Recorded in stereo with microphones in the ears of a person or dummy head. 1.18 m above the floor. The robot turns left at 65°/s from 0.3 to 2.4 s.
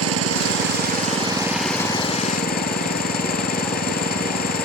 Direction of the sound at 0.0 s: 95° right.